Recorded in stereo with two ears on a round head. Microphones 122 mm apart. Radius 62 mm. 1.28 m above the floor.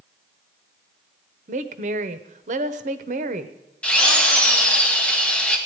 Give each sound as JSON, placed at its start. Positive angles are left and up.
{"t": 1.5, "sound": "a woman speaking", "side_deg": -60, "distance_m": 0.9}
{"t": 3.8, "sound": "a drill", "side_deg": 10, "distance_m": 2.0}